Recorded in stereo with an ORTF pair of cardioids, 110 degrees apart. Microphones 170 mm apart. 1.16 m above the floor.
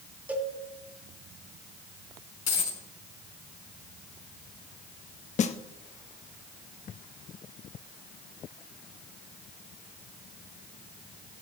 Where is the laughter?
I don't hear laughter.